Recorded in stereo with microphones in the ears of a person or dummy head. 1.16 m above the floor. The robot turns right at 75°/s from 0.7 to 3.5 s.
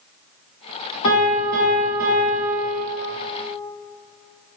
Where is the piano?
85° left, 1.8 m; by 2.8 s 145° right, 1.8 m.